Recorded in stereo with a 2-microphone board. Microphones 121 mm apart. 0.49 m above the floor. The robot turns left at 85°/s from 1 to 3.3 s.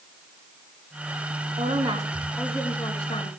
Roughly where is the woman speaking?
Behind right.